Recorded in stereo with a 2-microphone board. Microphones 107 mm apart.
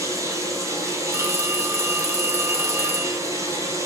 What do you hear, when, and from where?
0.0 s running water: 30° right (ahead or behind), 3 m
1.1 s a phone ringing: 20° right (ahead or behind), 0.6 m